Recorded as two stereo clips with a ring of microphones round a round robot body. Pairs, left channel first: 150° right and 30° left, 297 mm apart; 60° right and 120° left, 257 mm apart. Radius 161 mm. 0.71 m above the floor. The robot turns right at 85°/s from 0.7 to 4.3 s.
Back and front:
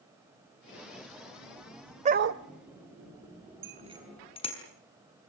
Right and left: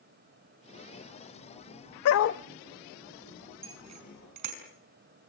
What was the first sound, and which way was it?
A dog barking, 40° right.